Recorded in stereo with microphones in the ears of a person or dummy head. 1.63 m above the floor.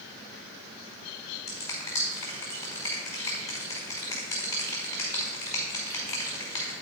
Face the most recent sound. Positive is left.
turn(degrees=15)  # may be behind; listen again after turning